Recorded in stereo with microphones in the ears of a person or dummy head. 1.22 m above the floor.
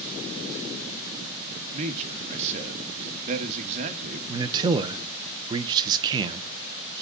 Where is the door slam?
No door slam in this recording.